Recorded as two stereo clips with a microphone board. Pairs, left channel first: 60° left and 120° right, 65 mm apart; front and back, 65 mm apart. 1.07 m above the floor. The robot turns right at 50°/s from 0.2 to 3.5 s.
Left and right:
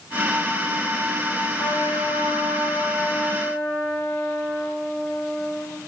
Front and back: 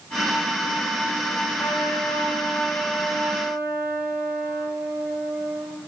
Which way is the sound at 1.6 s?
30° left.